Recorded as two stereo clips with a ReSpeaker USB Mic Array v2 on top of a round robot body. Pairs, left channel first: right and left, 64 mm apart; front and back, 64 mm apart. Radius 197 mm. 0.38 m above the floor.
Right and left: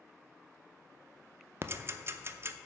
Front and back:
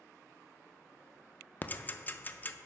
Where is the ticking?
50° left, 0.6 m.